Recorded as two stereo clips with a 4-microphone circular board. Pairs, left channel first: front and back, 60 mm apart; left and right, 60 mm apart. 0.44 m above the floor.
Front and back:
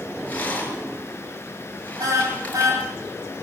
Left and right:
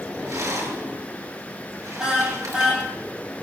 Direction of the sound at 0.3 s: 65° right.